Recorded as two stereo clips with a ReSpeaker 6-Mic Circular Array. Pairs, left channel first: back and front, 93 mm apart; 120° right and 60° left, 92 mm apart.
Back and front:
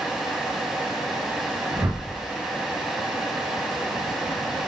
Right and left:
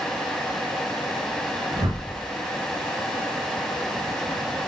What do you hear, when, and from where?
1.7 s a whoosh: 60° left, 1.4 m